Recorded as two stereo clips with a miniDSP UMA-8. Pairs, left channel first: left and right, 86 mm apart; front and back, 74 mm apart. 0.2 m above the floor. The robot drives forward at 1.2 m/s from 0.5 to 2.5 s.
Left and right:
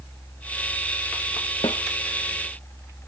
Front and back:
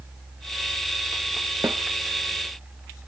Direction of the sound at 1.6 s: 125° left.